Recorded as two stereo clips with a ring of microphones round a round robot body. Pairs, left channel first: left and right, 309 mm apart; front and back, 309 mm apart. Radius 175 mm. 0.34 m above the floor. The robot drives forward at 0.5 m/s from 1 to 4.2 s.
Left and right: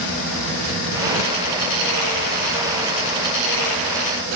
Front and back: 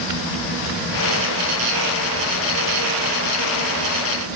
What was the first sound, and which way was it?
Only background noise.